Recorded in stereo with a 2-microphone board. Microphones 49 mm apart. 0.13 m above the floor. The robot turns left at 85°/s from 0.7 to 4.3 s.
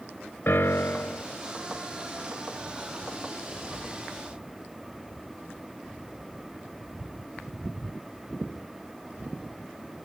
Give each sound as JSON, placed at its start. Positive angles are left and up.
{"t": 0.5, "sound": "a piano", "azimuth_deg": 95, "distance_m": 0.6}